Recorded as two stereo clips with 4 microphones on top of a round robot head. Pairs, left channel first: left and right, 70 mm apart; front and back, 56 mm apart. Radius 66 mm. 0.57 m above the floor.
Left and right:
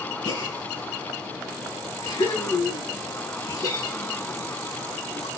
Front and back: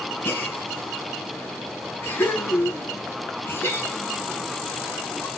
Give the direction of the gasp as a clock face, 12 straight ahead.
10 o'clock.